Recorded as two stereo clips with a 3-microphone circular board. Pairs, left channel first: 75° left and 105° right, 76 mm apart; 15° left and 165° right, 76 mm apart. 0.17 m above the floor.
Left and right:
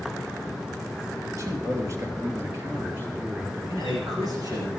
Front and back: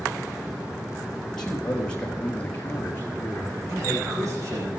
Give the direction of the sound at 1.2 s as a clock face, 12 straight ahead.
2 o'clock.